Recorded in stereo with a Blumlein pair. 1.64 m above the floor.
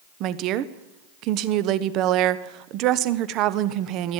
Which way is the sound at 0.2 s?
35° right.